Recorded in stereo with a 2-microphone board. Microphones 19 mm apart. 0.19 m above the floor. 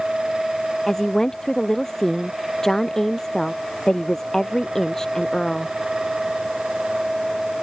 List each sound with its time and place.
0.9 s a woman speaking: 25° left (ahead or behind)